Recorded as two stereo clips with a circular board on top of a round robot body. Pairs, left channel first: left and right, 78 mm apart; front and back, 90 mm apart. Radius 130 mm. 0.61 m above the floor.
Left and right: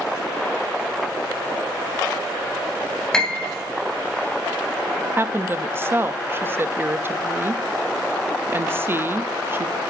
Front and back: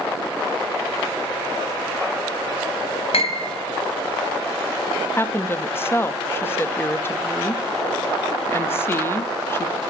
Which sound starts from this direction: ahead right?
A woman speaking, at 5.2 s.